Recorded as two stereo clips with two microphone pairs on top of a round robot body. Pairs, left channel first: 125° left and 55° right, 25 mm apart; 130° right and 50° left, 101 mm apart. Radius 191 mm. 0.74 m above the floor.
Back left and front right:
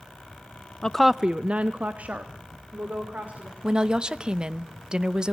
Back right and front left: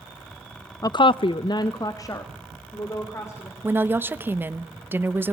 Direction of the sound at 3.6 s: 15° right.